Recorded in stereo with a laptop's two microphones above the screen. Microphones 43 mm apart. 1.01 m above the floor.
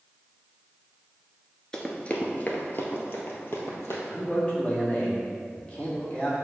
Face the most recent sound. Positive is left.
turn(degrees=25)  # may be behind; listen again after turning